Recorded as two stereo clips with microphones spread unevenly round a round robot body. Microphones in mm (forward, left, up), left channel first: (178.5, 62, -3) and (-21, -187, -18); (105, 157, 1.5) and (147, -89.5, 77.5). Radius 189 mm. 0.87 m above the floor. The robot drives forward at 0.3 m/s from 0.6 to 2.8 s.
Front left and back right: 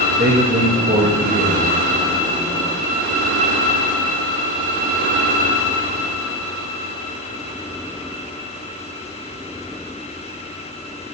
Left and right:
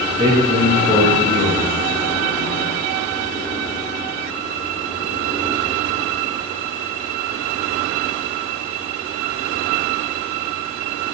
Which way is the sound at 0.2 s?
170° right.